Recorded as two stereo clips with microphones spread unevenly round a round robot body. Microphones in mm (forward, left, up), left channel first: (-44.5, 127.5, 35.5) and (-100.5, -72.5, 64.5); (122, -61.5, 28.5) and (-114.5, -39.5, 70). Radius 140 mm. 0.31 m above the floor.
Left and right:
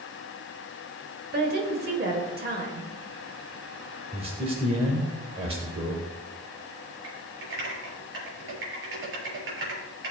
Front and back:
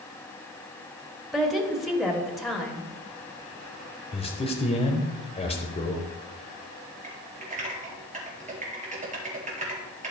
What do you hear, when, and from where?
1.3 s a woman speaking: 85° right, 1.7 m
4.1 s a man speaking: 45° right, 1.1 m
7.0 s typing on a keyboard: 125° right, 4.5 m